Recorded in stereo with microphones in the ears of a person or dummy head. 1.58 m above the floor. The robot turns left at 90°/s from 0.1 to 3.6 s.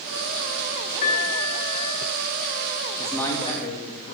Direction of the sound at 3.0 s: 175° right.